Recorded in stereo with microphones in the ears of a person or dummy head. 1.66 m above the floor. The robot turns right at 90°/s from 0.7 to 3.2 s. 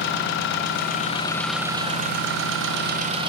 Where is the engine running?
105° left, 1.0 m; by 3.3 s 30° right, 1.0 m.